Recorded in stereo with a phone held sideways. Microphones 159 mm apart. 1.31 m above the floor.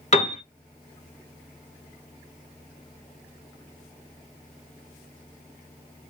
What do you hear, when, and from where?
0.1 s a piano: 45° left (ahead or behind), 0.9 m